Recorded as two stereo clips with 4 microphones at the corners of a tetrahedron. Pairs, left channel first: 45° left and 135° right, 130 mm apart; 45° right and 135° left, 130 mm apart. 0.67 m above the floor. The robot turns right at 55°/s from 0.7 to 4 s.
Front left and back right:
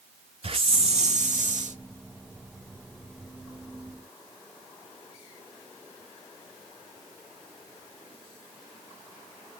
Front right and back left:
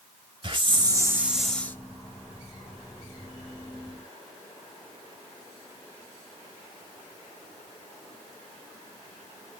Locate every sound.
0.4 s a hiss: 175° right, 0.8 m; by 1.8 s 115° right, 0.8 m